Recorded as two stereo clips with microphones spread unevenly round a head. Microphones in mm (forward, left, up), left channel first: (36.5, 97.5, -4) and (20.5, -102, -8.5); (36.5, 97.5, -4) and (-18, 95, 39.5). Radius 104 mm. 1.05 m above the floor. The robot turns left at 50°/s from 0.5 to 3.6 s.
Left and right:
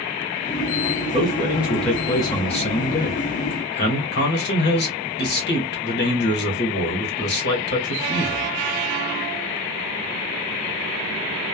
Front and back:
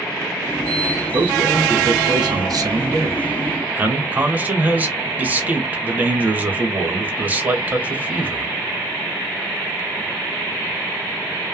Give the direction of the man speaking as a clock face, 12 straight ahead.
5 o'clock.